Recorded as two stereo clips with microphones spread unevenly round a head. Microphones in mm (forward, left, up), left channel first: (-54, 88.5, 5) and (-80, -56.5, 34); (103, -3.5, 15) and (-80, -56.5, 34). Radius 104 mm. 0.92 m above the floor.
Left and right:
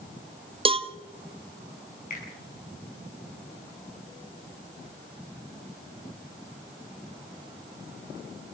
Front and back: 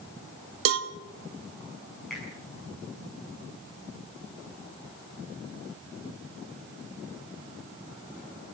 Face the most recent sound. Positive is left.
turn(degrees=105)